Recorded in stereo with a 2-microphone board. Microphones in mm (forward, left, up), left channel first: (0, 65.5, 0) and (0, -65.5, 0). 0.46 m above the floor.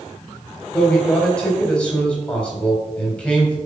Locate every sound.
0.7 s a man speaking: 5° left (ahead or behind), 3 m